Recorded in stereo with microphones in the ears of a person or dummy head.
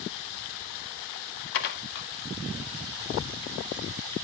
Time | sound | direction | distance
1.5 | dishes clattering | 55° left (ahead or behind) | 0.7 m